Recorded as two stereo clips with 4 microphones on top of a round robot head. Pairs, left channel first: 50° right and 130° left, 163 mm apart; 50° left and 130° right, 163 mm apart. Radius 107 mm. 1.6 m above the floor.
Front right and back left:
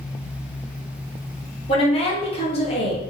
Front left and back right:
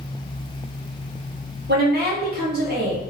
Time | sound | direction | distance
1.7 | a woman speaking | 105° right | 1.4 m